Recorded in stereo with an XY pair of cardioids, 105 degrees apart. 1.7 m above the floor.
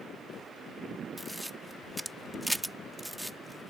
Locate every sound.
1.2 s a camera shutter: 10° right